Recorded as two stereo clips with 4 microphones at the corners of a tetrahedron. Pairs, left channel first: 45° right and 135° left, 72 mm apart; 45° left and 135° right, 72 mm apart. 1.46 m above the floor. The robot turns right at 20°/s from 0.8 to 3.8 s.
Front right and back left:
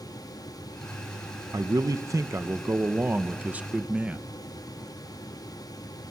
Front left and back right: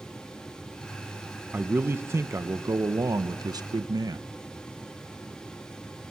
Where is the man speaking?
165° left, 0.9 m; by 4.2 s 150° right, 0.9 m.